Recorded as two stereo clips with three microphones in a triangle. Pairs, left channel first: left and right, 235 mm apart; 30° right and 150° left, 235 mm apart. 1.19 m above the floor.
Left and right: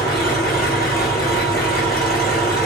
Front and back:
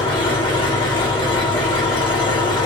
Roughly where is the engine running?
Ahead left.